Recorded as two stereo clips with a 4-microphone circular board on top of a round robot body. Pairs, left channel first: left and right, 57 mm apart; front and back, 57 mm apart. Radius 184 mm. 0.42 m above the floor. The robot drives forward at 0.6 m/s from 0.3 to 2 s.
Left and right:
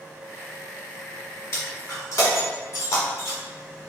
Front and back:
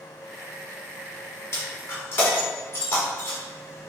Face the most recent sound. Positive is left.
turn(degrees=55)